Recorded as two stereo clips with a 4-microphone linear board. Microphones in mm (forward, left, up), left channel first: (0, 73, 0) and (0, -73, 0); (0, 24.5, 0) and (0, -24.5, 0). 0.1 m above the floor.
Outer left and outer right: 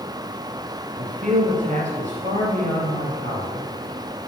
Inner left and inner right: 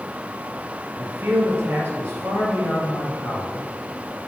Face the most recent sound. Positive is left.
turn(degrees=-50)  # may be behind; listen again after turning